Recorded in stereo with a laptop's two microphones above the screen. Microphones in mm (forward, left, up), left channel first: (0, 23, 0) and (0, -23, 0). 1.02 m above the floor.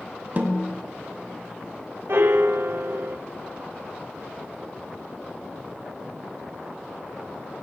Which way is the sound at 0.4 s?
40° right (ahead or behind).